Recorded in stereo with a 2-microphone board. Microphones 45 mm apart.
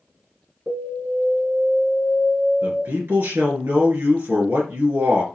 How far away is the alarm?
About 4.5 m.